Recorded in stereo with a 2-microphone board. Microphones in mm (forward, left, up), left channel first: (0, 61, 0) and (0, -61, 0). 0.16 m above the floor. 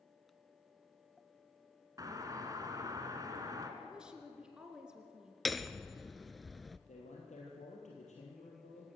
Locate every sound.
2.0 s a doorbell: 30° right (ahead or behind), 2.5 m
3.8 s a woman speaking: 5° right (ahead or behind), 2.5 m
5.5 s hammering: centre (ahead or behind), 0.7 m
6.9 s a man speaking: 75° left (ahead or behind), 4 m